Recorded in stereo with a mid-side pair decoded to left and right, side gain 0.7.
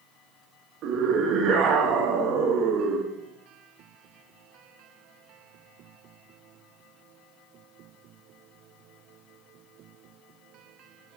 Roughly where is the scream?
Ahead right.